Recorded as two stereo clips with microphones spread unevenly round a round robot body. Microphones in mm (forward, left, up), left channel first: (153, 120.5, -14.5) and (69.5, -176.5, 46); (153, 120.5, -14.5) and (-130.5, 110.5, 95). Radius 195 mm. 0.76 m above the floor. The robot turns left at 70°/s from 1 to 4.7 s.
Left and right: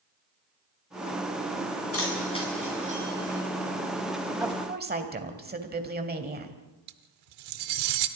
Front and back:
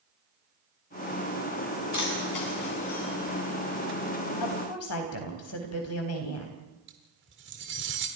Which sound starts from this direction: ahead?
A woman speaking, at 4.4 s.